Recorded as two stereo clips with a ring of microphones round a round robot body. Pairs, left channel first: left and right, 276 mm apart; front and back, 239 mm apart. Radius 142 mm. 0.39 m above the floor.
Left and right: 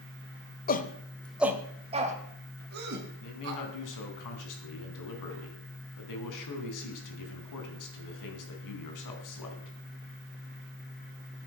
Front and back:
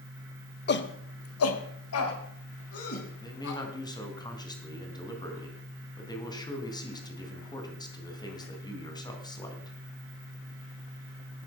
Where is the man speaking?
75° left, 3.5 m.